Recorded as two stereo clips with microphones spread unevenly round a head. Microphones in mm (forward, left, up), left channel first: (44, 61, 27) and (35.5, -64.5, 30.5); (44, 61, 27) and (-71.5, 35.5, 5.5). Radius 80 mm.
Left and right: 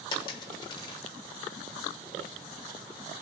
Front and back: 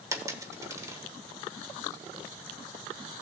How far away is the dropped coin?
About 1.0 m.